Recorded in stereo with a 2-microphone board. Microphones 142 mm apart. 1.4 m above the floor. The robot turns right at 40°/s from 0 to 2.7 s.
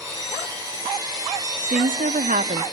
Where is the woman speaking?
100° right, 0.5 m; by 2.6 s 60° right, 0.5 m.